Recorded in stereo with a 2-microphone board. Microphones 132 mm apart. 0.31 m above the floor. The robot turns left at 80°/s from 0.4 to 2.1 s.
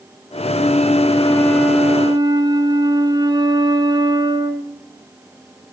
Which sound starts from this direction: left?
A flute, at 0.5 s.